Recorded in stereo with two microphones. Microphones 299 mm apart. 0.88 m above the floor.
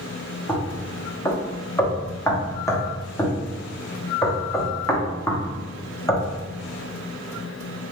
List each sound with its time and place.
0.5 s knocking: 10° left (ahead or behind), 0.6 m